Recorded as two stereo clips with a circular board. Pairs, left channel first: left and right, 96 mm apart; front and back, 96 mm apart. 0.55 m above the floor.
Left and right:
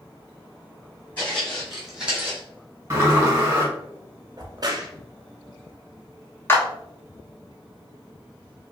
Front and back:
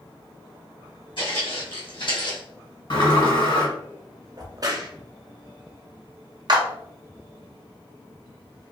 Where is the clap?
155° left, 0.7 m.